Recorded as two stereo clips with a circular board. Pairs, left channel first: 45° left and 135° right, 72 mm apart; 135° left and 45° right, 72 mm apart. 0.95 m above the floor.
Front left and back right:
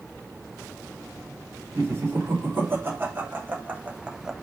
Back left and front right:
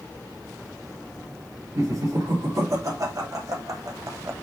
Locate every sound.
1.8 s laughter: 80° right, 3.5 m; by 4.3 s 55° right, 1.0 m